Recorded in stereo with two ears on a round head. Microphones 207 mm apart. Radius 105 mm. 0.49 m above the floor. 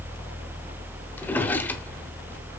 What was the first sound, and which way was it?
A drawer, 10° left (ahead or behind).